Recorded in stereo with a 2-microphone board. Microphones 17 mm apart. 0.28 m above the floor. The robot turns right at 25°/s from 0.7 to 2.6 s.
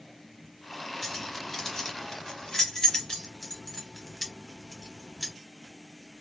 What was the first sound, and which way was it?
Keys jangling, 5° left (ahead or behind).